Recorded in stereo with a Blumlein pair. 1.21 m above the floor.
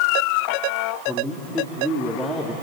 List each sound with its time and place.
1.1 s a man speaking: 5° left, 3 m